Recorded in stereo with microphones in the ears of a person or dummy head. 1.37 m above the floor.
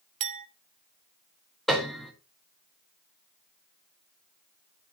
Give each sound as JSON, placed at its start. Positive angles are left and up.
{"t": 0.2, "sound": "a clink", "side_deg": -40, "distance_m": 0.6}
{"t": 1.7, "sound": "a piano", "side_deg": 0, "distance_m": 1.5}